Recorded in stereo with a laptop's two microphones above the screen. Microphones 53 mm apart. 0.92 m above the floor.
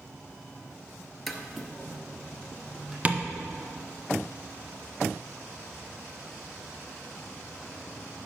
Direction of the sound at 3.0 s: 25° right (ahead or behind).